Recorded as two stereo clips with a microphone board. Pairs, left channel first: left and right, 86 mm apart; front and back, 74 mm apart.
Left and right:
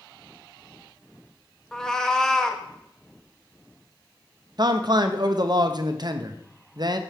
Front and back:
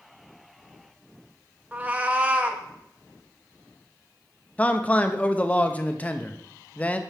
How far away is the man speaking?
About 0.7 m.